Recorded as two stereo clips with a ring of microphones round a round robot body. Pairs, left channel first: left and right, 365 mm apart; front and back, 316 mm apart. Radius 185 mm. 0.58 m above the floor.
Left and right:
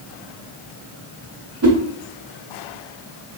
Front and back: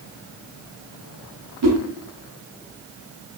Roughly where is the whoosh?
Behind right.